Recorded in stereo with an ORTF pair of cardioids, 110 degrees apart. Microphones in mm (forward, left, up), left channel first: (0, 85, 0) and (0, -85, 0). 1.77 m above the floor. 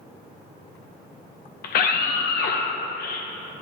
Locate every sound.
1.6 s a scream: 70° left, 1.1 m